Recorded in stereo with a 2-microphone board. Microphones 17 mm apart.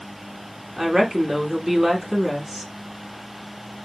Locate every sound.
0.8 s a woman speaking: 25° right (ahead or behind), 1.1 m